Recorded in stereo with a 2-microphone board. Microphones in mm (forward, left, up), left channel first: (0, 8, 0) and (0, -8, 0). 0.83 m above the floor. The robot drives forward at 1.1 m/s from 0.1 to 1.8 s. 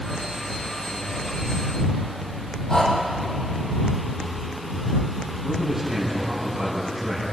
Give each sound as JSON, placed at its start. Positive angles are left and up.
{"t": 2.7, "sound": "breathing", "side_deg": 35, "distance_m": 5.0}
{"t": 5.4, "sound": "a man speaking", "side_deg": -45, "distance_m": 6.5}